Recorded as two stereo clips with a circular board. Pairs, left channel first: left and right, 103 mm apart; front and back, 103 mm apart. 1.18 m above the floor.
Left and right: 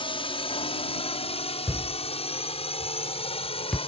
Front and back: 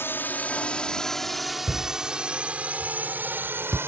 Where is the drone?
65° left; by 3.9 s 115° left.